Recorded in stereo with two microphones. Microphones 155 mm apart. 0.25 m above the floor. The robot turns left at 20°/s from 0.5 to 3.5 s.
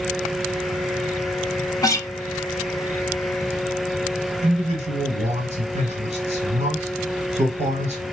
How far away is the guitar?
About 0.5 m.